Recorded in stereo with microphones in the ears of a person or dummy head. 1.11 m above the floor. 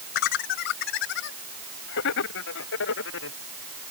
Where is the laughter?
55° left (ahead or behind); by 3.4 s 75° left (ahead or behind).